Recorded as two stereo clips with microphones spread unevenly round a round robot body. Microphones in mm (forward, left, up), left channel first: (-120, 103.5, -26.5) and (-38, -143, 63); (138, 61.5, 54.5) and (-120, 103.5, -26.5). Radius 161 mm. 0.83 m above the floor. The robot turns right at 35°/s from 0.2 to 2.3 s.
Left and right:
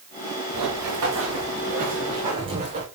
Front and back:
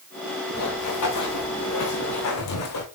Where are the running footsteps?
45° right, 5 m; by 2.9 s 5° right, 3.5 m.